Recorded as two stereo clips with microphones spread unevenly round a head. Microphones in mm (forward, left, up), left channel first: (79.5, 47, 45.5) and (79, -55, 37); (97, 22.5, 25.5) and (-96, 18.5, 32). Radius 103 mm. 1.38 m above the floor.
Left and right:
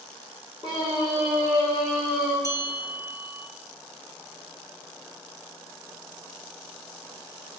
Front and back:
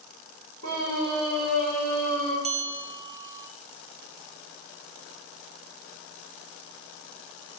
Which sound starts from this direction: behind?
A scream, at 0.6 s.